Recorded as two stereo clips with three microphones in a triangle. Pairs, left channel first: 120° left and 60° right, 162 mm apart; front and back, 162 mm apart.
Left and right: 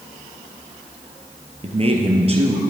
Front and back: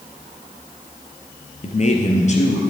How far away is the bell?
I don't hear a bell.